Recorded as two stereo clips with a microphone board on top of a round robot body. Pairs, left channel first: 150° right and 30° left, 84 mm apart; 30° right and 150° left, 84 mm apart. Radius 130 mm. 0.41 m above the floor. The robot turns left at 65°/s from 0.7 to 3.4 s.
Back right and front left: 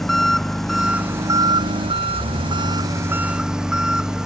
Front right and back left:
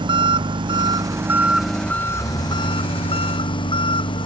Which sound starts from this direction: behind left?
An engine running, at 0.0 s.